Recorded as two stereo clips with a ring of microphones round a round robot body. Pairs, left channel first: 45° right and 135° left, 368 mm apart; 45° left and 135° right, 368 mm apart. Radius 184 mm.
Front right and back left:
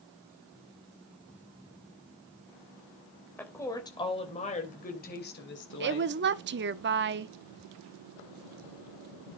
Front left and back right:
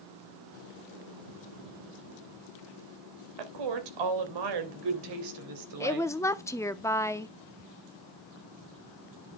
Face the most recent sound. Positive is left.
turn(degrees=120)